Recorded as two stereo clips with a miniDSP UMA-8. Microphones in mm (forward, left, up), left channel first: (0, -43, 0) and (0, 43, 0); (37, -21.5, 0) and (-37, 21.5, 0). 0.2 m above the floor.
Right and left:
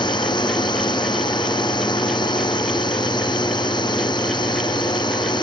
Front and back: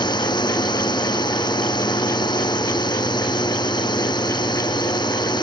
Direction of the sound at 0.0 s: 60° right.